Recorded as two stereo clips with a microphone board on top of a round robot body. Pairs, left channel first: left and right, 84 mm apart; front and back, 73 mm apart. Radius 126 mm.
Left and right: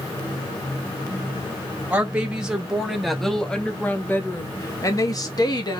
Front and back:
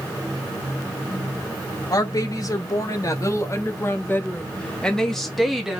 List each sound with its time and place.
1.9 s a woman speaking: 20° right, 1.8 m; by 5.8 s 100° left, 1.5 m